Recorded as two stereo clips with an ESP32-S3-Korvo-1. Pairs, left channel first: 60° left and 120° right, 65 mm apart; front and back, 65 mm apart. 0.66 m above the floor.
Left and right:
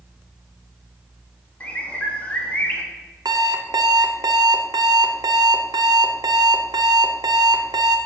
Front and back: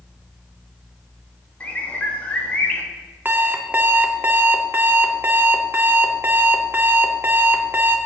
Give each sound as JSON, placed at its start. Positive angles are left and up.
{"t": 1.6, "sound": "a bird", "azimuth_deg": 25, "distance_m": 1.0}
{"t": 3.2, "sound": "an alarm clock", "azimuth_deg": -120, "distance_m": 0.6}